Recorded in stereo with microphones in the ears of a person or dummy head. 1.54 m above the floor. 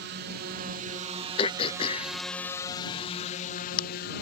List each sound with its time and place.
0.0 s a drone: 55° right (ahead or behind); by 4.2 s 55° left (ahead or behind)
1.4 s throat clearing: 30° left (ahead or behind)